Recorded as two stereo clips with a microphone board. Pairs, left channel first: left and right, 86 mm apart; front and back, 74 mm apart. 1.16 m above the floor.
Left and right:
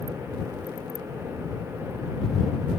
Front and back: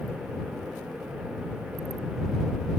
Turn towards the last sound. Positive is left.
No sound to turn to.